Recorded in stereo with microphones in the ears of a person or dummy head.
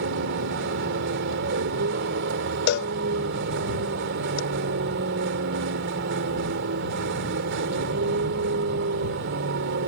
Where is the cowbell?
65° left (ahead or behind).